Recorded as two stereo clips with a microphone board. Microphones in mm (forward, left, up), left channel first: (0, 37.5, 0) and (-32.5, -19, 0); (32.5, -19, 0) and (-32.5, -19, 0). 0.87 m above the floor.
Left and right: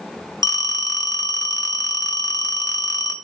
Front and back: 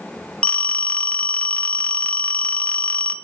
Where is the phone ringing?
65° left, 0.7 m.